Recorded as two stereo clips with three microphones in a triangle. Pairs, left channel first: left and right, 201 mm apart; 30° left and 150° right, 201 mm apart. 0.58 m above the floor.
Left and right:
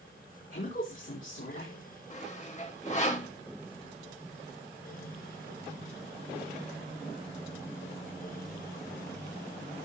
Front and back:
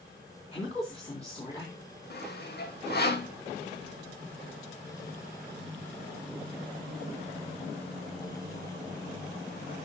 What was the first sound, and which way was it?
A woman speaking, 90° left.